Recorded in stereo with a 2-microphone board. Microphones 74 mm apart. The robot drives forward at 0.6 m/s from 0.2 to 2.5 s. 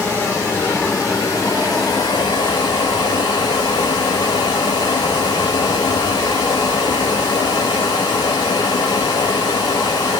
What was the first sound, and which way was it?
Running water, 35° left (ahead or behind).